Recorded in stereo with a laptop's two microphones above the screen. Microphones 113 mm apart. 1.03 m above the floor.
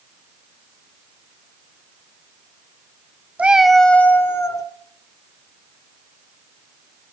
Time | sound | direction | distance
3.4 | a cat meowing | 10° right (ahead or behind) | 0.8 m